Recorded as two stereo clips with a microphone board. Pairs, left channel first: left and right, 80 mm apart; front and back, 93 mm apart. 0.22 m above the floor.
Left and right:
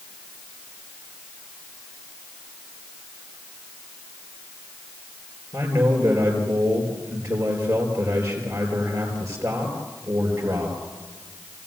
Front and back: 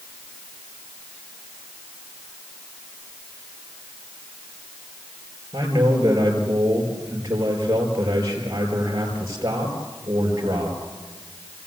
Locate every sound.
5.5 s a man speaking: 125° right, 4.5 m